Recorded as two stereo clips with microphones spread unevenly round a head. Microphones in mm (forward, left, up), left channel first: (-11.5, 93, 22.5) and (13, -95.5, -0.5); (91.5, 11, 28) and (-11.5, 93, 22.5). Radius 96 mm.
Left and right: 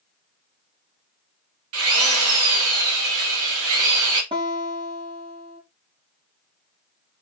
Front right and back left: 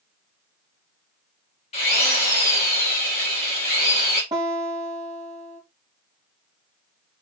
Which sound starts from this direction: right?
A drill, at 1.7 s.